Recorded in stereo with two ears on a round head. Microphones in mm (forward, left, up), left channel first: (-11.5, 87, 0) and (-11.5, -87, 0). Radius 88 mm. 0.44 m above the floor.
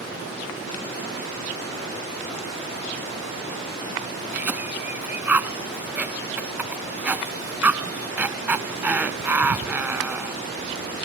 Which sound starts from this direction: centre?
A cough, at 4.3 s.